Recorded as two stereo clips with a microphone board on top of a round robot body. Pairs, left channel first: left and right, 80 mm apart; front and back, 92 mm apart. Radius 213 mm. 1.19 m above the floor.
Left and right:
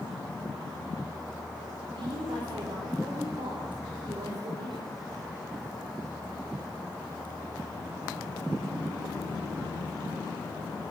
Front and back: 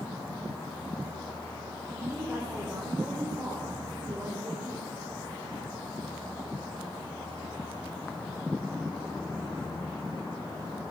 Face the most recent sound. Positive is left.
turn(degrees=-110)